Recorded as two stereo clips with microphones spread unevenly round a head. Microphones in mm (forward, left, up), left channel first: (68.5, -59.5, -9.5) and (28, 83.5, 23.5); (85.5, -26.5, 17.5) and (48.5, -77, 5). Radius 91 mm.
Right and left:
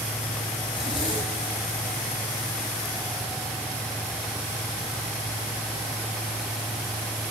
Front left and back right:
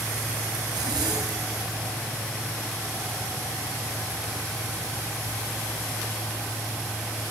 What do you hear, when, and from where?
0.7 s a zipper: 145° right, 6 m